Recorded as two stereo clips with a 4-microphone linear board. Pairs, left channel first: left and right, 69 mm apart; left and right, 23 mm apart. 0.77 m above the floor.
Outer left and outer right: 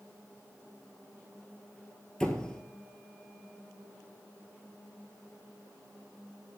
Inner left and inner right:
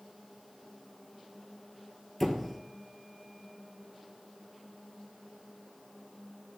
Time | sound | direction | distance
2.2 | a squeak | 10° left (ahead or behind) | 1.2 m